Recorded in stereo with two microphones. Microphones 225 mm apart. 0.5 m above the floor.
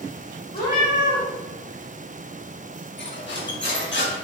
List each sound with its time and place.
0.5 s a cat meowing: 40° left (ahead or behind), 1.3 m
3.0 s cutlery clinking: 55° left (ahead or behind), 0.7 m